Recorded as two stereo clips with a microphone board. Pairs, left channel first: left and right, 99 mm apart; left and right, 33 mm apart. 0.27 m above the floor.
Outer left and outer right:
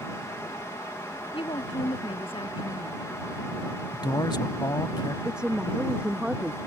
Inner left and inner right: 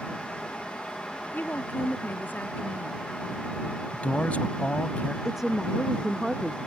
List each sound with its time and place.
1.3 s a woman speaking: 60° left (ahead or behind)
3.9 s a man speaking: 45° left (ahead or behind)
5.2 s a woman speaking: 10° right (ahead or behind)